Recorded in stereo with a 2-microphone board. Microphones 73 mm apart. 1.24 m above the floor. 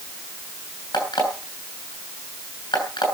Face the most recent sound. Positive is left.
turn(degrees=80)